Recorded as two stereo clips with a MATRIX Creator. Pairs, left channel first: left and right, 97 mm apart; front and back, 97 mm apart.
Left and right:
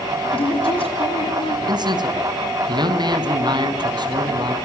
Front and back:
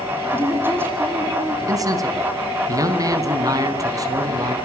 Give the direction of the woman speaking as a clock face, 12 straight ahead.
8 o'clock.